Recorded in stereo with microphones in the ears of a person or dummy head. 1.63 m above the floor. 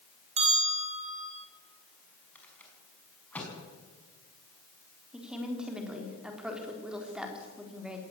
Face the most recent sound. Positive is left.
turn(degrees=0)  # may be behind; listen again after turning